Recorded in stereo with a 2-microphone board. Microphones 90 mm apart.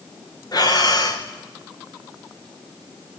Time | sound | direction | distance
0.5 | breathing | 50° left (ahead or behind) | 3 m